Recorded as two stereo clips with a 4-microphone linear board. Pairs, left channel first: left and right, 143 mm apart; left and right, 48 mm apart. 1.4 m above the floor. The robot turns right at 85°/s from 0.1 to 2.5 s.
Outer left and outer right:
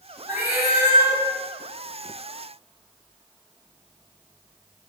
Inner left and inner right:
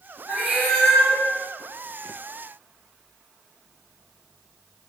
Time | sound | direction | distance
0.3 | a cat meowing | 30° right | 1.6 m